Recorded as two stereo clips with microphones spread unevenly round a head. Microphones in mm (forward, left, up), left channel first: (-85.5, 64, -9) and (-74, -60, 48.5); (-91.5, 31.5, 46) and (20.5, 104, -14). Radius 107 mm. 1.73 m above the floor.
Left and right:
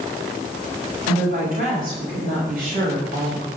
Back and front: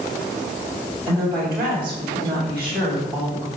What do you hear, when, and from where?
1.1 s a woman speaking: 50° right, 7.5 m